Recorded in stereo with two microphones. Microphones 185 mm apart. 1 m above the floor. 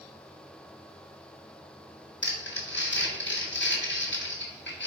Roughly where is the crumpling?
Left.